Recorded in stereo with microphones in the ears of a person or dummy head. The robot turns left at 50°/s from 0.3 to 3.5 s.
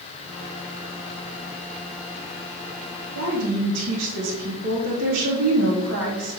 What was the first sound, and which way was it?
A woman speaking, 80° right.